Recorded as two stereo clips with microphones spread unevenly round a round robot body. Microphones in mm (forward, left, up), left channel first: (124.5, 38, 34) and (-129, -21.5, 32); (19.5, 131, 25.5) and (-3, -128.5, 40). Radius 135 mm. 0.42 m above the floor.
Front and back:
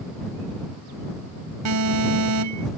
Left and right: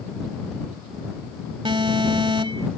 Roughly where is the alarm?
Behind.